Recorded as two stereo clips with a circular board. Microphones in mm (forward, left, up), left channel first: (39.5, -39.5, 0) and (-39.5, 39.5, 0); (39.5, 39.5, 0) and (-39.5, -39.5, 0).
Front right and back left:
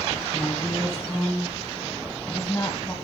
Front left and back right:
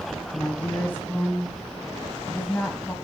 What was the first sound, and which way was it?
A woman speaking, 15° right.